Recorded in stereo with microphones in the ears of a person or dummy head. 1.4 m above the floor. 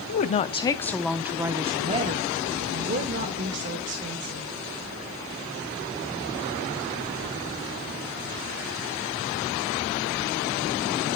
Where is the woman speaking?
45° left (ahead or behind), 0.7 m; by 4.5 s 55° right (ahead or behind), 2 m.